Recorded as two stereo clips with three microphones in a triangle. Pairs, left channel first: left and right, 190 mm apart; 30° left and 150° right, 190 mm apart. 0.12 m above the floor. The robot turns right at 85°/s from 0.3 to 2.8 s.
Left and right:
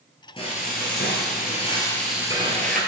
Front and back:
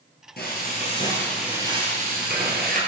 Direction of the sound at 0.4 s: 35° left.